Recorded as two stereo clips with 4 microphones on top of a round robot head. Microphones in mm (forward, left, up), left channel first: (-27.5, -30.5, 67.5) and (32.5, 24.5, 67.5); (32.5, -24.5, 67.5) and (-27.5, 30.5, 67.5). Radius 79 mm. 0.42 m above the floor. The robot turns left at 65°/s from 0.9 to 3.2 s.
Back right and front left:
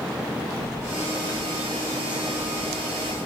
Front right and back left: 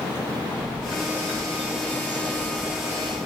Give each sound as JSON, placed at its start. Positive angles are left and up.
{"t": 0.6, "sound": "a bird", "azimuth_deg": 165, "distance_m": 7.0}